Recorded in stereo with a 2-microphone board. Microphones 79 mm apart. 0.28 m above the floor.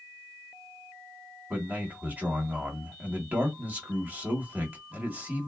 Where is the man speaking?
20° right (ahead or behind), 1.1 m.